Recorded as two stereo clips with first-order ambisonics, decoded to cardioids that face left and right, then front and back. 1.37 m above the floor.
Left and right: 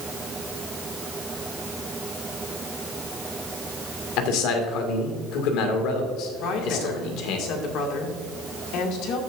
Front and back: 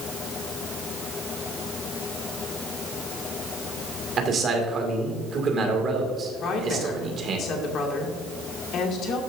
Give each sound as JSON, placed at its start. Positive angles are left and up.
{"t": 4.2, "sound": "a man speaking", "azimuth_deg": 115, "distance_m": 2.0}
{"t": 6.4, "sound": "a woman speaking", "azimuth_deg": 55, "distance_m": 2.0}